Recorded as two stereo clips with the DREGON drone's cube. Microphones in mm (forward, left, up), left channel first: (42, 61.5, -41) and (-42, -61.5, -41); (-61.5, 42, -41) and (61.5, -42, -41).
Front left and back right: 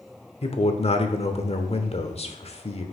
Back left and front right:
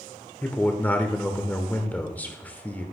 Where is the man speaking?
70° left, 1.0 m.